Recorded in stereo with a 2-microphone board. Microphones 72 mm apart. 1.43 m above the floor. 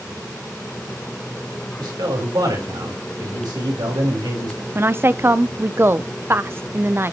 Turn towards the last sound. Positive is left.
turn(degrees=-35)  # may be behind; listen again after turning